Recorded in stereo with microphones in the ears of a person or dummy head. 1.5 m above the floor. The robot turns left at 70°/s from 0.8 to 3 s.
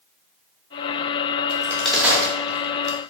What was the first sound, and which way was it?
A crack, 25° left (ahead or behind).